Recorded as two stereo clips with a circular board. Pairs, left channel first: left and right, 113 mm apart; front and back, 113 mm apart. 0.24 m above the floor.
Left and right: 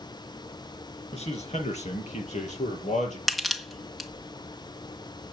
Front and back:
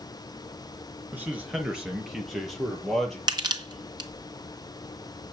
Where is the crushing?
Straight behind, 1.6 m.